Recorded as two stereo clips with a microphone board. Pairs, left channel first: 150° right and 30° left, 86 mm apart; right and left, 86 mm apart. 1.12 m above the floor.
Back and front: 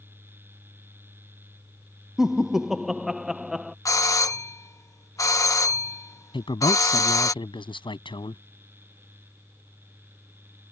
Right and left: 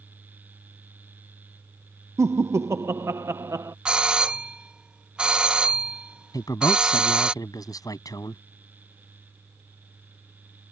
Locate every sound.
2.2 s laughter: 110° left
3.9 s a doorbell: 165° left
6.3 s a man speaking: 135° right